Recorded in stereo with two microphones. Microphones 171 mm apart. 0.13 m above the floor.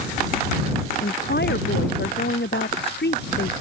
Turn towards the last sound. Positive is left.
turn(degrees=80)